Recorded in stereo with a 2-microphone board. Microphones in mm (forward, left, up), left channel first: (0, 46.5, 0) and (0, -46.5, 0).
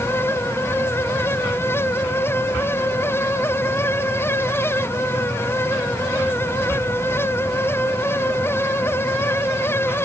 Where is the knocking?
No knocking in this recording.